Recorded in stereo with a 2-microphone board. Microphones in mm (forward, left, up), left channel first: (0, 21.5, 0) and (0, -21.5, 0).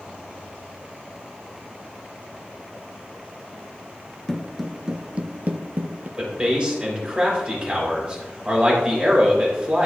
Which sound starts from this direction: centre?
Footsteps, at 4.3 s.